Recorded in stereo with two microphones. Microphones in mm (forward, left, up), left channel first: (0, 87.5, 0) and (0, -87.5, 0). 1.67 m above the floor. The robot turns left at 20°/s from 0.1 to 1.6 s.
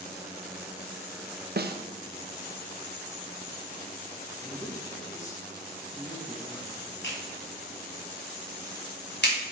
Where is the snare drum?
65° right (ahead or behind), 0.8 m.